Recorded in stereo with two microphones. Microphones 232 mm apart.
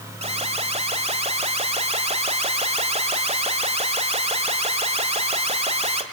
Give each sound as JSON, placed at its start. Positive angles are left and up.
{"t": 0.2, "sound": "an alarm", "side_deg": -25, "distance_m": 1.7}